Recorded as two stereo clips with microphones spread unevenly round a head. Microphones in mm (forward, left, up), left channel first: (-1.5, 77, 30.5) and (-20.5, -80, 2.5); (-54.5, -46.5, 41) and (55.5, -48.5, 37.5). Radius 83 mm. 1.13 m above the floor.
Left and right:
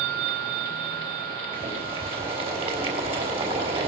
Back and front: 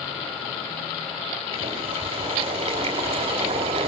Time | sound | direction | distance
1.5 | boiling | 40° right | 4.5 m